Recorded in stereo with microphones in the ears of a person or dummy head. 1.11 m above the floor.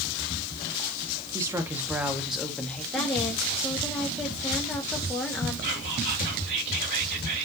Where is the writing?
No writing in this recording.